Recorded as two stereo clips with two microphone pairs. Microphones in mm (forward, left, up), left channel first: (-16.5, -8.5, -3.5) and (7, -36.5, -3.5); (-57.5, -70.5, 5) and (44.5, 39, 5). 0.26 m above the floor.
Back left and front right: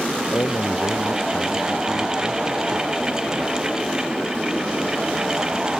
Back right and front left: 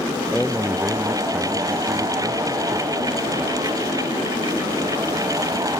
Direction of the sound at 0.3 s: 135° left.